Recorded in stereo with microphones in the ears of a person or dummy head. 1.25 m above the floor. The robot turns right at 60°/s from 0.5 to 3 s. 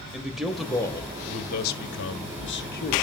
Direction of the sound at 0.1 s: 10° right.